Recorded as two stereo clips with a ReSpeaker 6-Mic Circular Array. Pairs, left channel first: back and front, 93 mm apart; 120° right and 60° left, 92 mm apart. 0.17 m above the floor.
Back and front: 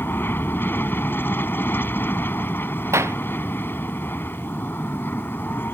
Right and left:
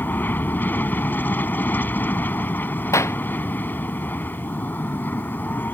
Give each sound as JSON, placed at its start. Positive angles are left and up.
{"t": 0.0, "sound": "an aircraft", "azimuth_deg": -155}
{"t": 2.9, "sound": "a clap", "azimuth_deg": -60}